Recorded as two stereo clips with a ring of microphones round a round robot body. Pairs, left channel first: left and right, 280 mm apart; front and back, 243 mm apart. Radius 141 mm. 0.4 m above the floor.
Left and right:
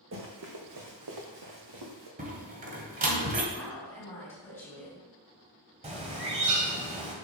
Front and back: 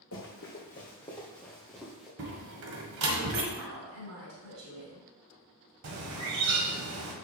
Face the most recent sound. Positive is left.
turn(degrees=-155)